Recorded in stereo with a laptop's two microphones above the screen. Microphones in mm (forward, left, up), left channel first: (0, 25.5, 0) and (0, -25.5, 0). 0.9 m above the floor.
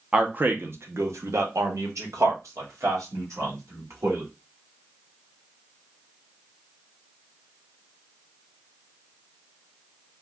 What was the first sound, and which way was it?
A man speaking, 25° right (ahead or behind).